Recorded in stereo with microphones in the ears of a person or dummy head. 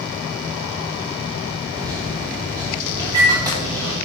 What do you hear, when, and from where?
1.7 s a microwave: 25° right (ahead or behind), 1.7 m